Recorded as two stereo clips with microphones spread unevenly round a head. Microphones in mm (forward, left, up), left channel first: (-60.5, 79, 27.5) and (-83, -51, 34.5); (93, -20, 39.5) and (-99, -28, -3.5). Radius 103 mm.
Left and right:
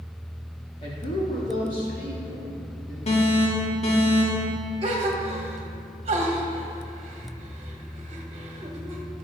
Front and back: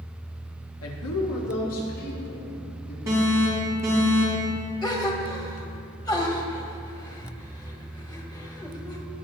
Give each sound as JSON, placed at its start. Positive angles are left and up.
{"t": 0.8, "sound": "a woman speaking", "azimuth_deg": 20, "distance_m": 1.5}
{"t": 3.1, "sound": "an alarm", "azimuth_deg": 110, "distance_m": 3.0}
{"t": 4.8, "sound": "a gasp", "azimuth_deg": -75, "distance_m": 1.2}